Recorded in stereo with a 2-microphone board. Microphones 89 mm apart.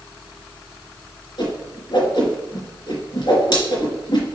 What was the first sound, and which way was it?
A whoosh, 55° left (ahead or behind).